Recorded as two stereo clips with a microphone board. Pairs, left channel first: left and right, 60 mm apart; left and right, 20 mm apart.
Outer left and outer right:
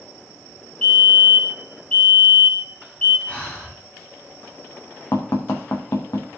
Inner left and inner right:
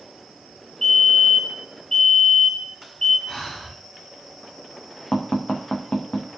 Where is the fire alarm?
25° left (ahead or behind), 6.5 m.